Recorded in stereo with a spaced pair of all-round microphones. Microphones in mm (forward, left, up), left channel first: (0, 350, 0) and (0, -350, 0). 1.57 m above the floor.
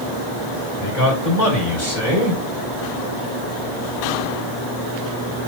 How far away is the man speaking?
About 5 m.